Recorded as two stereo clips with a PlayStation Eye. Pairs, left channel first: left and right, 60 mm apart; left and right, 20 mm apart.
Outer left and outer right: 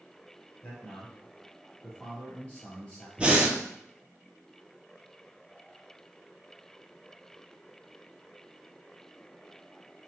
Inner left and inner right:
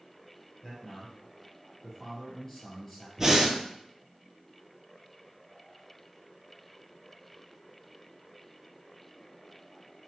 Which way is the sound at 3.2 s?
20° right (ahead or behind).